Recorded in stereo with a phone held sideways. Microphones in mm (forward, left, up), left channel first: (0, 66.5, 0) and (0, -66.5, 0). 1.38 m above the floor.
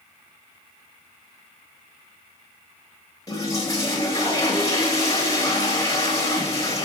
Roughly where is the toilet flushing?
Left.